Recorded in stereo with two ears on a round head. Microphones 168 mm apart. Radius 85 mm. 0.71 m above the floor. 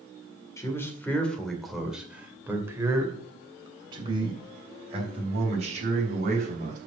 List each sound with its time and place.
0.6 s a man speaking: 15° left (ahead or behind), 2 m; by 6.8 s 45° right (ahead or behind), 4 m